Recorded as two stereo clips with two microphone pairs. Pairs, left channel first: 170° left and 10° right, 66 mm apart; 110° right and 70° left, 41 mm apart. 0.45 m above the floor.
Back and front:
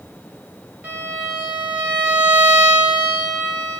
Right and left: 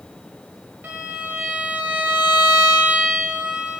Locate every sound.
0.8 s a violin: 50° left, 0.8 m